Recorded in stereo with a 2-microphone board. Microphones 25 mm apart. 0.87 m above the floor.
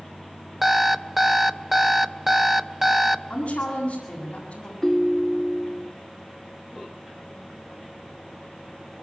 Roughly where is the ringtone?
Centre.